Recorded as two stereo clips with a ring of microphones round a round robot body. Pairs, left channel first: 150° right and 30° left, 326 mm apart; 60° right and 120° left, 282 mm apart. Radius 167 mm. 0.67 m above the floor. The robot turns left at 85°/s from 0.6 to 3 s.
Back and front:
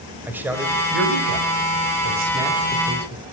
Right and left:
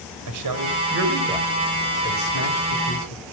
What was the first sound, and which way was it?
A man speaking, 115° left.